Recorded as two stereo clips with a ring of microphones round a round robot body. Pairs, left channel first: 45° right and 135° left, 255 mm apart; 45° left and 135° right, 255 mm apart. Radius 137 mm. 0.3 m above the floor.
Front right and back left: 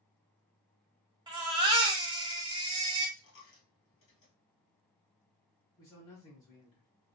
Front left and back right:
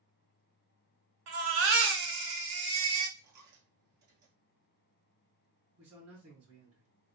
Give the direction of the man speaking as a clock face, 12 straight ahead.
4 o'clock.